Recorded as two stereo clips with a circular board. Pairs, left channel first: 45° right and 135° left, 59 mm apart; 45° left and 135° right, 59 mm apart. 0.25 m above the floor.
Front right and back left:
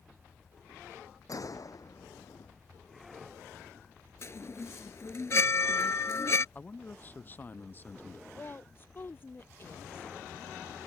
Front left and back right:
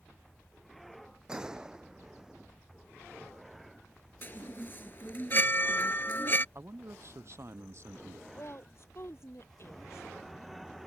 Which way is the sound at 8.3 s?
5° left.